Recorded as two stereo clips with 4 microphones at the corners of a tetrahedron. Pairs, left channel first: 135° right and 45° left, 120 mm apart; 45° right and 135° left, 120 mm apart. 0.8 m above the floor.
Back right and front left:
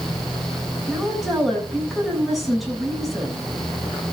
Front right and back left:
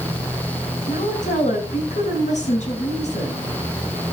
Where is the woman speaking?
45° right, 6.5 m.